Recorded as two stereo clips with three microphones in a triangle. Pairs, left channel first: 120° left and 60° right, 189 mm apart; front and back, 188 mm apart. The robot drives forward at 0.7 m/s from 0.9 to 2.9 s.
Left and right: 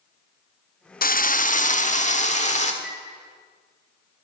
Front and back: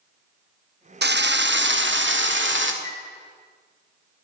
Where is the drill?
160° left, 0.6 m; by 2.7 s 175° left, 1.7 m.